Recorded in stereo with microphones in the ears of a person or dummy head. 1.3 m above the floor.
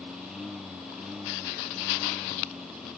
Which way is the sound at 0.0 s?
Centre (ahead or behind).